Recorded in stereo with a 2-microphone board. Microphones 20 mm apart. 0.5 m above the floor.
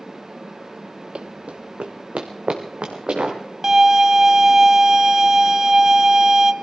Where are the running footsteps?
55° right (ahead or behind), 0.7 m; by 3.4 s 60° right (ahead or behind), 3.5 m.